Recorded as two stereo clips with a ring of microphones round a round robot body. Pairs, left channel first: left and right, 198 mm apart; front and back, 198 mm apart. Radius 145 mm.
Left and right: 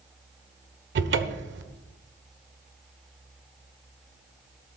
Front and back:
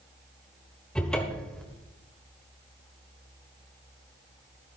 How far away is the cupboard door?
About 1.2 m.